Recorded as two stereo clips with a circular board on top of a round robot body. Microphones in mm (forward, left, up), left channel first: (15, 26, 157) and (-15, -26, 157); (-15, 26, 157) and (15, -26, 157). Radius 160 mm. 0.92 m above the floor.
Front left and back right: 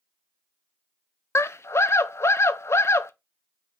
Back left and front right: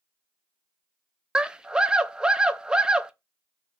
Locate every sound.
1.4 s a scream: 20° left, 0.5 m